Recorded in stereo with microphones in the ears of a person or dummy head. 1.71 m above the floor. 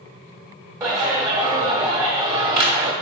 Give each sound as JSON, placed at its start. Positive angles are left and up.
{"t": 0.8, "sound": "a clap", "side_deg": -15, "distance_m": 0.9}